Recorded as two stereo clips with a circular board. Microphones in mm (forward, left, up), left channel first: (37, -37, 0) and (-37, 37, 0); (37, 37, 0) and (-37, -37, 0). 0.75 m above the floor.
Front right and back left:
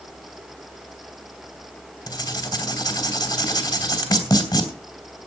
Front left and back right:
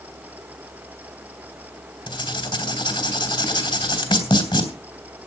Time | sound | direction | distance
2.1 | writing | 10° left | 2.5 m